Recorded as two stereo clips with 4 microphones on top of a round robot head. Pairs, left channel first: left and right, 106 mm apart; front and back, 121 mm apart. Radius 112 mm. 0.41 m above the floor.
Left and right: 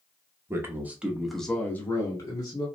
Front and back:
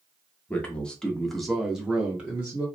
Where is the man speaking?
65° right, 1.0 m; by 2.6 s 110° left, 1.1 m.